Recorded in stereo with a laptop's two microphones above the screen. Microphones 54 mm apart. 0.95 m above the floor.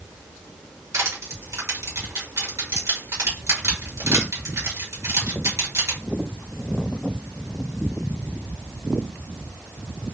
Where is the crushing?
70° right (ahead or behind), 2.5 m.